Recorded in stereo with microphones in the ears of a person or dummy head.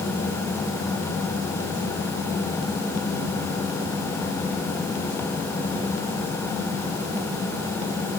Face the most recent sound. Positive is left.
No sound to turn to.